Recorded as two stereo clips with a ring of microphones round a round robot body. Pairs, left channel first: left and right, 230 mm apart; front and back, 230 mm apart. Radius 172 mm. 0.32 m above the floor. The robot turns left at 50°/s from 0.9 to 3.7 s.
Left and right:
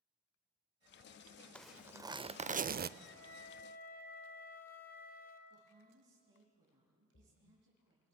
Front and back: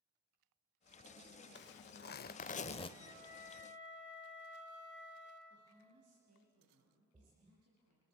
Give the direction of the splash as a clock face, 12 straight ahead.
8 o'clock.